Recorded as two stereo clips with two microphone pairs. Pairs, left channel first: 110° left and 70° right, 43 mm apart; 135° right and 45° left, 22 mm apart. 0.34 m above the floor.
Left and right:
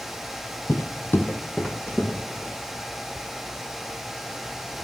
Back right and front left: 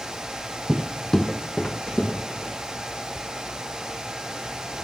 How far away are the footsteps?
About 0.7 m.